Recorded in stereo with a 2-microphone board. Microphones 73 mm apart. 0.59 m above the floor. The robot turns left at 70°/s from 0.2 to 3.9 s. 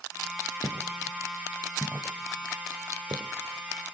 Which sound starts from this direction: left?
Footsteps, at 0.6 s.